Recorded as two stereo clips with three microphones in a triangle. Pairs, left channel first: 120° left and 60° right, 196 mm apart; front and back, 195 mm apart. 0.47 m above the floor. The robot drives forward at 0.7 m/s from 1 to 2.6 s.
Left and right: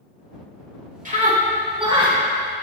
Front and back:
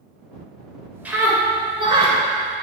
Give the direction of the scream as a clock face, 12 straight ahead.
3 o'clock.